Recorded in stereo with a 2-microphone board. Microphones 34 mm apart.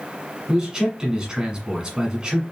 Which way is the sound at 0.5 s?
25° right (ahead or behind).